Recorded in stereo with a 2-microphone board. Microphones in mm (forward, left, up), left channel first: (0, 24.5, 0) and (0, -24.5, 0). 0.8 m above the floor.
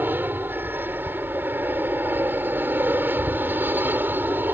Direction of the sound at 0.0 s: 45° right (ahead or behind).